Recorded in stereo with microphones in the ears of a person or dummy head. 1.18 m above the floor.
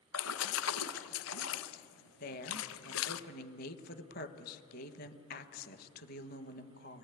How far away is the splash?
About 0.9 m.